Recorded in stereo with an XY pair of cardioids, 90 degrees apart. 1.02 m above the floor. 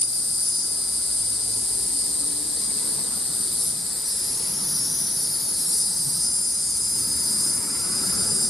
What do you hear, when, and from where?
0.0 s an insect: 10° left, 0.7 m